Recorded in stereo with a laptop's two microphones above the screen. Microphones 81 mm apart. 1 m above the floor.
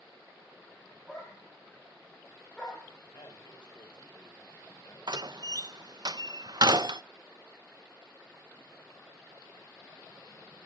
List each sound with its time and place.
1.1 s a dog barking: 5° left (ahead or behind), 10 m
3.1 s a man speaking: 65° left (ahead or behind), 5 m
5.1 s a door slam: 60° right (ahead or behind), 0.5 m